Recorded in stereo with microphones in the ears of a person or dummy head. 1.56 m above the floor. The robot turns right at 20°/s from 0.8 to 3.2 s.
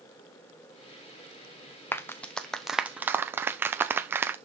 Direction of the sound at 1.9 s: 10° left (ahead or behind).